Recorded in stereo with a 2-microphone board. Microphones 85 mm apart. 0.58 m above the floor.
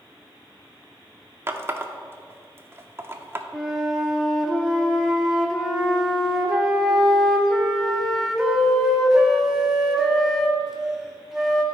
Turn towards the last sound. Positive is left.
turn(degrees=-5)  # may be behind; listen again after turning